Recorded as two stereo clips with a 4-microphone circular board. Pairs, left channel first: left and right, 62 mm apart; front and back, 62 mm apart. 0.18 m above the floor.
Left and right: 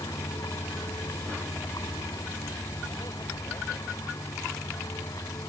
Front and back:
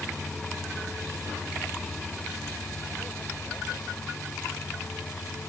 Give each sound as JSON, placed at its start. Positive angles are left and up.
{"t": 0.0, "sound": "a vehicle", "azimuth_deg": 85}